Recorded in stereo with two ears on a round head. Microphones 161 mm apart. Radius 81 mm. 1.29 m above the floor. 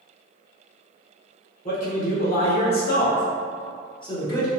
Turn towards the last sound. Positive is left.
turn(degrees=20)  # may be behind; listen again after turning